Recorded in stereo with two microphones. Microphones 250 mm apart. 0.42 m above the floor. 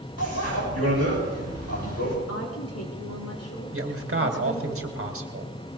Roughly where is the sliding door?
No sliding door in this recording.